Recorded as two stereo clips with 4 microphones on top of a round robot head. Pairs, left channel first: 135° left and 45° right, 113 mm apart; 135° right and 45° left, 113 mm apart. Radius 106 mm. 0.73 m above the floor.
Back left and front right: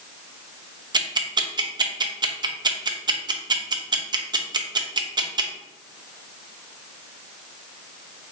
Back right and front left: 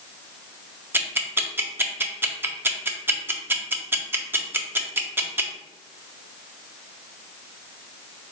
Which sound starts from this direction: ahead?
Ticking, at 0.9 s.